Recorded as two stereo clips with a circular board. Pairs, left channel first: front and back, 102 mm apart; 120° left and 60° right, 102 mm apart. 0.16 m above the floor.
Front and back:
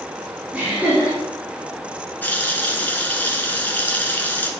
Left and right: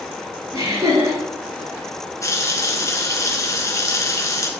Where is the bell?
No bell in this recording.